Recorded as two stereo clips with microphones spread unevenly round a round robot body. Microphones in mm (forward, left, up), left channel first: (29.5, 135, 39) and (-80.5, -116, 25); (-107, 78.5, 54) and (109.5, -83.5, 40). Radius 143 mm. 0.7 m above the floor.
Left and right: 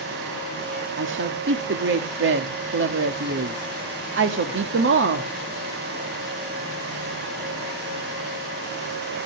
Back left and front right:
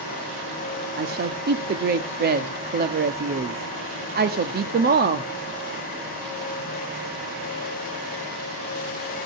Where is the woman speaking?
80° right, 1.4 m.